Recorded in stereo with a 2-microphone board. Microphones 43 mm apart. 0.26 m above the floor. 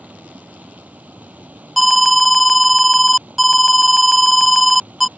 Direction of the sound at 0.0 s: 40° right (ahead or behind).